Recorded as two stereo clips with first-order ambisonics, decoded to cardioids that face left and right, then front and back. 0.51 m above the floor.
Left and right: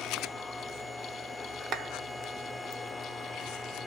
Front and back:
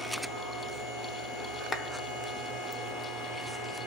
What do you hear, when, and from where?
1.7 s a clap: 65° right, 0.9 m